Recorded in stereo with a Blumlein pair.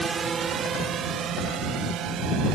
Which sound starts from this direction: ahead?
A drone, at 0.0 s.